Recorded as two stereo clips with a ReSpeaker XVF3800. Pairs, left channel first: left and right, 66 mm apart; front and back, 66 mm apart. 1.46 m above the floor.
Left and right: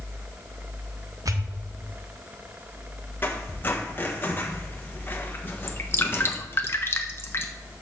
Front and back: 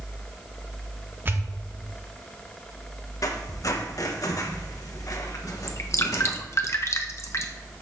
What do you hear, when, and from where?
1.2 s a pop: 120° right, 0.9 m
3.2 s a squeak: 30° left, 1.2 m
5.7 s dripping: 40° left, 0.9 m